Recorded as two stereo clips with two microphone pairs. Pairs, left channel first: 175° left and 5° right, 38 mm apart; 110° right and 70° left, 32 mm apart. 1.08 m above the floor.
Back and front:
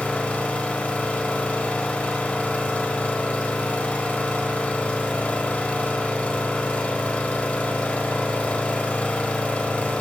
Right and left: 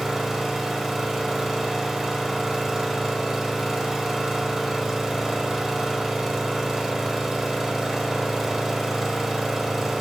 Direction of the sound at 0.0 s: 145° left.